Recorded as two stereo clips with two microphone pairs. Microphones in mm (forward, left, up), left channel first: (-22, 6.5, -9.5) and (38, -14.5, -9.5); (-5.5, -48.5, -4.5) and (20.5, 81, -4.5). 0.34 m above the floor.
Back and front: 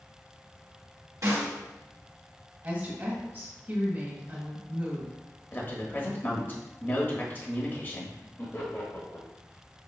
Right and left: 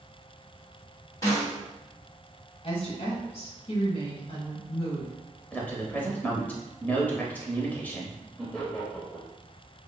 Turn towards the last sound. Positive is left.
turn(degrees=175)